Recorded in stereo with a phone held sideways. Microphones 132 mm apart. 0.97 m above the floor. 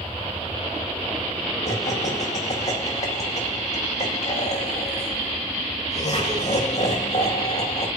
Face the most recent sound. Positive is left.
turn(degrees=55)  # may be behind; listen again after turning